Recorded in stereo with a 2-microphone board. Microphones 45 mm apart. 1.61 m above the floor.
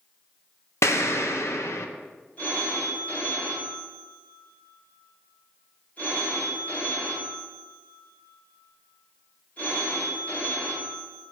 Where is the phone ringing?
35° left (ahead or behind), 4.5 m.